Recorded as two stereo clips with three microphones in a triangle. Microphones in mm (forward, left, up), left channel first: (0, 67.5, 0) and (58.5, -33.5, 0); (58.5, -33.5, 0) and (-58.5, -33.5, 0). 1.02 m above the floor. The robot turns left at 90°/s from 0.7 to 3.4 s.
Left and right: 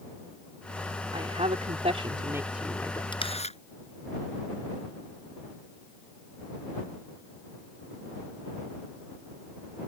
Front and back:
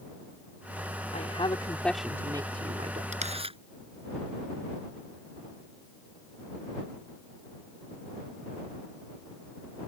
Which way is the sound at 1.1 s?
15° right.